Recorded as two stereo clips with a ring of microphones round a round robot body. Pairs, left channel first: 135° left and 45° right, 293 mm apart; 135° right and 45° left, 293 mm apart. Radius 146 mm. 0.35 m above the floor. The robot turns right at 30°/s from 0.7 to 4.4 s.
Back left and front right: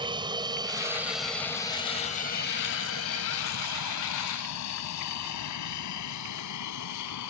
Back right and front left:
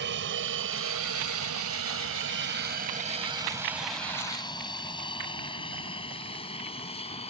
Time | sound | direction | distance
0.0 | an aircraft | 20° left | ?